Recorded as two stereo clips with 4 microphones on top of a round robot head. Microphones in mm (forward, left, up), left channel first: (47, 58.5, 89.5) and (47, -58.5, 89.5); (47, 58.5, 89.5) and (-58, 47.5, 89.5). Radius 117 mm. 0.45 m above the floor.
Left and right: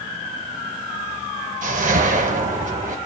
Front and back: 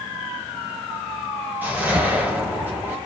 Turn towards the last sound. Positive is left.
turn(degrees=-100)